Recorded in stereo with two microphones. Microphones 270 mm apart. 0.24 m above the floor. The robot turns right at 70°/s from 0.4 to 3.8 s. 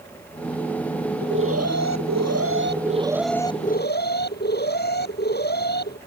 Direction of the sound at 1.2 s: 145° right.